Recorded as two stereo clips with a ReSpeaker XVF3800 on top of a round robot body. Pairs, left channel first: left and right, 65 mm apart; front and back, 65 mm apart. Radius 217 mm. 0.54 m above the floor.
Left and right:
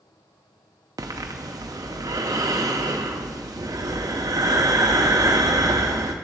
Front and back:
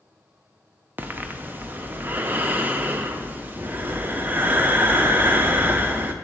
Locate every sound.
1.0 s breathing: 120° right, 0.5 m